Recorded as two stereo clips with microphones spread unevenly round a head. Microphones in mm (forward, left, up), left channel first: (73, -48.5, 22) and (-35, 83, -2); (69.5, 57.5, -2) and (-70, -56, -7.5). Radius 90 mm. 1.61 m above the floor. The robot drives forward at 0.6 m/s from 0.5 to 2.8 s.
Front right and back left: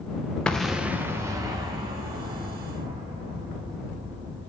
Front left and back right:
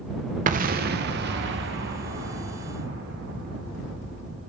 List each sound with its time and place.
0.5 s an explosion: 125° right, 0.7 m; by 4.5 s 165° right, 1.8 m